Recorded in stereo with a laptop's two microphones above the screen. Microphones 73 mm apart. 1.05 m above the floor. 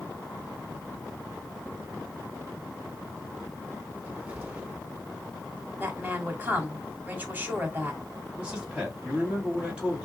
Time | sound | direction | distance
3.9 | a cupboard door | 20° right (ahead or behind) | 1.9 m
5.8 | a woman speaking | 25° right (ahead or behind) | 2 m
8.4 | a man speaking | 15° right (ahead or behind) | 2 m